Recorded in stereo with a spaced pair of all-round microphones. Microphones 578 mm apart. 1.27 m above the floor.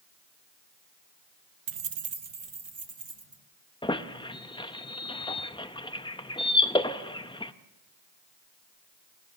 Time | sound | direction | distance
1.7 | keys jangling | 55° right (ahead or behind) | 0.6 m
3.8 | a squeak | 10° left (ahead or behind) | 0.5 m